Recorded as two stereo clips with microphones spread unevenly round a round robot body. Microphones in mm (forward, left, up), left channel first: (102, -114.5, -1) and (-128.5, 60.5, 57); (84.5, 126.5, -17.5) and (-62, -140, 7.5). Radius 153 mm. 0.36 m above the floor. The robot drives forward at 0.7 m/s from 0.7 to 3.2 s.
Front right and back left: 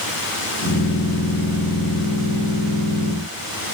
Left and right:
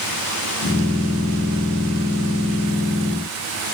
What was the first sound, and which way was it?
Only background noise.